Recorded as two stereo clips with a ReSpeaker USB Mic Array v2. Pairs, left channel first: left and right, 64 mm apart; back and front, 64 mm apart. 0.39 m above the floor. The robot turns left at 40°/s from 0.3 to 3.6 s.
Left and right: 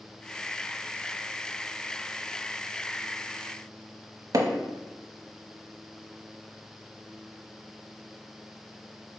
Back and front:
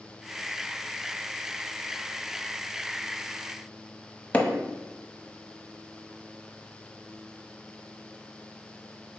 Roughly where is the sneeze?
I don't hear a sneeze.